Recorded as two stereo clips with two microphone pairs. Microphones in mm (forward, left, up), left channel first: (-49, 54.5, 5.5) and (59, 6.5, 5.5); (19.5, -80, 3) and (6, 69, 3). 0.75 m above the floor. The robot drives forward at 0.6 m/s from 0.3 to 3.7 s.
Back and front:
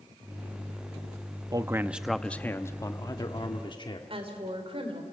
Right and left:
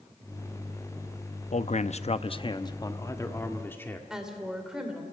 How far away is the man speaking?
About 0.6 m.